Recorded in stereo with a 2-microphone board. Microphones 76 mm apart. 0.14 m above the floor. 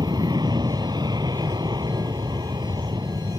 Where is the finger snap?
I don't hear a finger snap.